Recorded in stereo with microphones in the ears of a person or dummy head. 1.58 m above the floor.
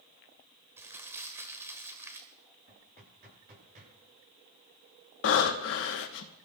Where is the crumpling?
15° right (ahead or behind), 1.6 m.